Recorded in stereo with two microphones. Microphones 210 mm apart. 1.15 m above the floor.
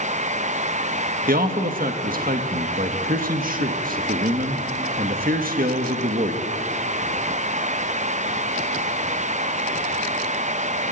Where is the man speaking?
45° right (ahead or behind), 1.4 m.